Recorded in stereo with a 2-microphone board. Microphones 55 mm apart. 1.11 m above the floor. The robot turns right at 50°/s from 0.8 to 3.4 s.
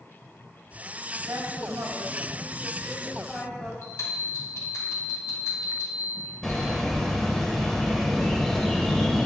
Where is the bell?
70° left (ahead or behind), 3.5 m.